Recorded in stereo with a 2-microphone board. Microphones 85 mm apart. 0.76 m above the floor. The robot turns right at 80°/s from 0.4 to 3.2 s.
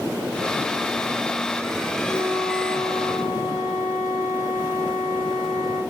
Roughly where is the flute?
Ahead.